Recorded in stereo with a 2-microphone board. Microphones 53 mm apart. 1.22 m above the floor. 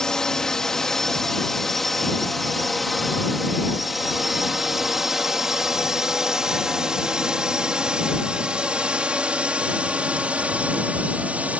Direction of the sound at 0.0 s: 10° left (ahead or behind).